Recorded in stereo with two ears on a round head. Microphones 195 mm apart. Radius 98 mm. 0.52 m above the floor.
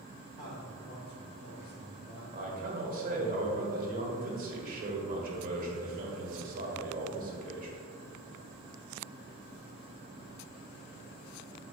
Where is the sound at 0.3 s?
30° left (ahead or behind), 1.2 m; by 2.2 s 40° left (ahead or behind), 2 m.